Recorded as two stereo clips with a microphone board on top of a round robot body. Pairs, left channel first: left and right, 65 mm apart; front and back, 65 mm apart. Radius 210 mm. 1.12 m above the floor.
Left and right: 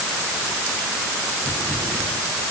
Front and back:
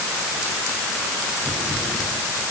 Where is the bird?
I don't hear a bird.